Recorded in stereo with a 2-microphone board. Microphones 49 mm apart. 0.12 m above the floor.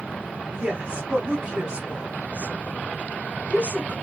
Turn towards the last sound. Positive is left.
turn(degrees=-20)  # may be behind; listen again after turning